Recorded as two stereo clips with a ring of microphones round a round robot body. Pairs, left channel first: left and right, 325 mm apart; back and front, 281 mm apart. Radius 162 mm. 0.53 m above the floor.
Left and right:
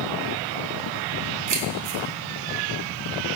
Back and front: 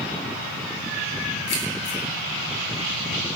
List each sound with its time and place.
1.5 s keys jangling: 130° right, 3 m